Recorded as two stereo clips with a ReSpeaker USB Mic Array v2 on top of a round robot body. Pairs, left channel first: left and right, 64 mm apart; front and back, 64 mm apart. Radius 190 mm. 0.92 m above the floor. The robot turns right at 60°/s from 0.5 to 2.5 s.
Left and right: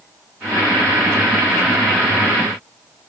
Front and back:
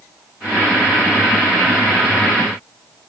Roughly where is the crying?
I don't hear crying.